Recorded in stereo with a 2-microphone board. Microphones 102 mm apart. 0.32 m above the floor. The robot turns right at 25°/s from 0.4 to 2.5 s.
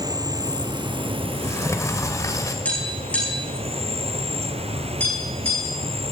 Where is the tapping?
10° left (ahead or behind), 6 m.